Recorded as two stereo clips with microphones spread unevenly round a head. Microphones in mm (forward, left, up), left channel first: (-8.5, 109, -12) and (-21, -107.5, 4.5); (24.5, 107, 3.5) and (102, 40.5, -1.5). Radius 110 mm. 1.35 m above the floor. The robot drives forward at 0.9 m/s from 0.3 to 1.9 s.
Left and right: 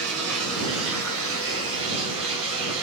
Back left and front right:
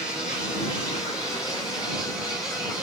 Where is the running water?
110° right, 5 m; by 2.8 s 125° right, 5.5 m.